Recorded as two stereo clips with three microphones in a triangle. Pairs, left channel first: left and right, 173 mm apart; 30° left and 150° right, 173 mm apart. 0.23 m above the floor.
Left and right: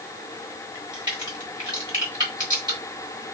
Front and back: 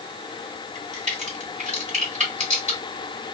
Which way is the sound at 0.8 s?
140° right.